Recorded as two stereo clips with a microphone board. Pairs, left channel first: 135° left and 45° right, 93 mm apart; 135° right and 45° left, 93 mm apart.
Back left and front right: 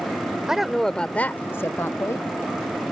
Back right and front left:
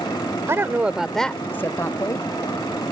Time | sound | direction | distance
0.5 | a woman speaking | 30° left | ?